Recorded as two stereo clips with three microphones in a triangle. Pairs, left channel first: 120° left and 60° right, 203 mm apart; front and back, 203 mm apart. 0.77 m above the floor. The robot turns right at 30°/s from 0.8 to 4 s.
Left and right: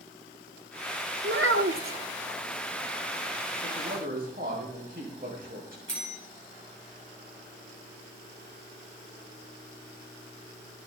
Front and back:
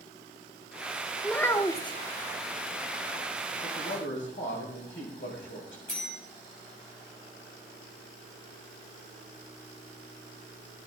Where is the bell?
40° right, 5.5 m.